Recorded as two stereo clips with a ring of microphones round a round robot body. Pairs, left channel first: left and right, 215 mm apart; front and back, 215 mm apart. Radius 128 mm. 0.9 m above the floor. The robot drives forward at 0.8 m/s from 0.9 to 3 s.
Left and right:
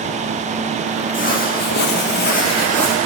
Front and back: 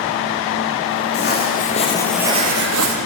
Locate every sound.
1.1 s footsteps: 40° left, 2.5 m; by 3.0 s straight behind, 1.9 m